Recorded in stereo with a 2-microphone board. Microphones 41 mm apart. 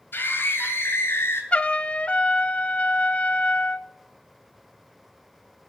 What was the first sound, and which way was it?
A scream, 55° left (ahead or behind).